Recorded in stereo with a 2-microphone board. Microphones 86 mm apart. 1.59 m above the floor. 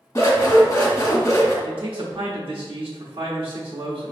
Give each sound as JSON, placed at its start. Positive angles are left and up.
{"t": 0.1, "sound": "scissors", "side_deg": 35, "distance_m": 1.1}
{"t": 1.6, "sound": "a man speaking", "side_deg": -85, "distance_m": 0.8}